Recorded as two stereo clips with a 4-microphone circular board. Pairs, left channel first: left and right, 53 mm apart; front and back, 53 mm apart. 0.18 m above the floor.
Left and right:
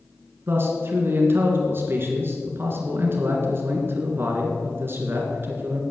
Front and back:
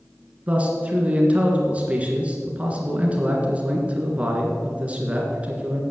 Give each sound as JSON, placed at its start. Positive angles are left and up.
{"t": 0.5, "sound": "a man speaking", "azimuth_deg": -120, "distance_m": 2.5}